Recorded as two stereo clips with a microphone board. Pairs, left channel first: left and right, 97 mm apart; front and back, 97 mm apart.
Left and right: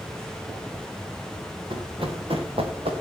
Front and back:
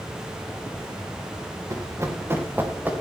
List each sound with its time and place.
1.7 s running footsteps: 125° right, 3 m; by 2.9 s 105° right, 3.5 m